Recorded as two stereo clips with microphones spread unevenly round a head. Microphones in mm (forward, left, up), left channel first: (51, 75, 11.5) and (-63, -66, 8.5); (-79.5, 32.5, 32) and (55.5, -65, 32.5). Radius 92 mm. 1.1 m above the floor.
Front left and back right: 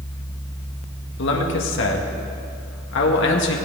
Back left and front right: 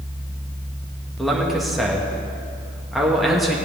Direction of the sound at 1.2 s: 55° left.